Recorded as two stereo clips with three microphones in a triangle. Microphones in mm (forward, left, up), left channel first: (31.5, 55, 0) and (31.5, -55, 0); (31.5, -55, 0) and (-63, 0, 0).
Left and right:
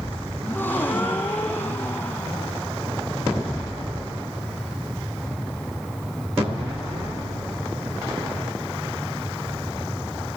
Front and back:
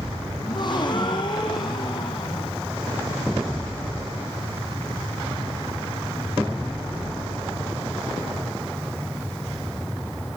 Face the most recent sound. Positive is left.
turn(degrees=15)